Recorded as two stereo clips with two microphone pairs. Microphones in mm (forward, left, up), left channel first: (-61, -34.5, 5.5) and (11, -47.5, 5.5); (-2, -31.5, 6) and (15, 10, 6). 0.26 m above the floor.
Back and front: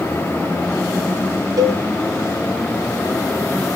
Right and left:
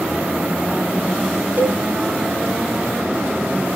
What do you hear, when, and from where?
1.6 s a cowbell: 20° left, 0.5 m